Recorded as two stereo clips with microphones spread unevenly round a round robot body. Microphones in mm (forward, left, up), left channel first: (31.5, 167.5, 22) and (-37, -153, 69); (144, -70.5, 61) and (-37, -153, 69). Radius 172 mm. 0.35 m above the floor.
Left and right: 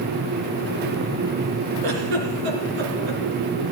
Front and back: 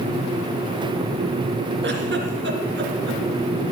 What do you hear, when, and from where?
1.8 s a giggle: 125° right, 3 m